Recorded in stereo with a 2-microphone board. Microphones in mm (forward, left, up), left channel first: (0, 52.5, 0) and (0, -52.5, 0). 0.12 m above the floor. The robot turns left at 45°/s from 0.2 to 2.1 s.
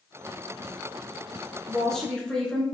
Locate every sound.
1.7 s a woman speaking: centre (ahead or behind), 1.1 m; by 2.6 s 10° left (ahead or behind), 1.1 m